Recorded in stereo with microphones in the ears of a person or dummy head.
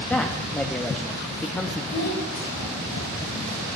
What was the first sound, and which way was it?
A man speaking, 10° left (ahead or behind).